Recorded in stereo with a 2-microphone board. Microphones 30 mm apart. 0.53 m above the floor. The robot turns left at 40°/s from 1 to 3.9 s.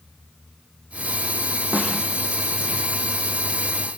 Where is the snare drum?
75° right (ahead or behind), 5 m; by 2.0 s 65° right (ahead or behind), 5 m.